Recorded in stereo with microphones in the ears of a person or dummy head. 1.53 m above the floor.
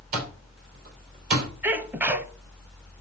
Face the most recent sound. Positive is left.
turn(degrees=-10)  # may be behind; listen again after turning